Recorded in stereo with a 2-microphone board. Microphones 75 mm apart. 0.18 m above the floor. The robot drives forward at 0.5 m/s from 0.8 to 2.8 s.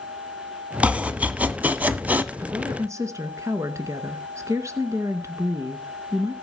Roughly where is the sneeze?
No sneeze in this recording.